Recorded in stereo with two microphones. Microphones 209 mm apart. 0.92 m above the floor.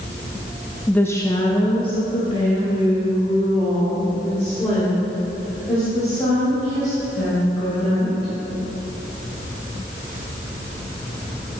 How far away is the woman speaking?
About 0.5 m.